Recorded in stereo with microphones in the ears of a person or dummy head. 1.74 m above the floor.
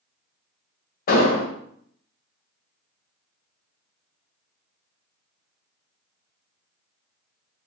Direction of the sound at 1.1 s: 45° left (ahead or behind).